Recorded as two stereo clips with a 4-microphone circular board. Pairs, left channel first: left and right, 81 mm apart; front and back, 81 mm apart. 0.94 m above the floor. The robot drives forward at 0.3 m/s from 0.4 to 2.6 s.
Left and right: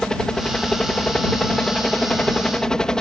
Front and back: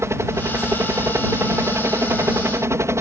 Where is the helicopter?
165° left.